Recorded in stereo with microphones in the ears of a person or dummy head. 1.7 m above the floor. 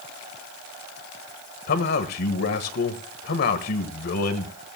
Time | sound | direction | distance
1.7 | a man speaking | 50° left (ahead or behind) | 1.4 m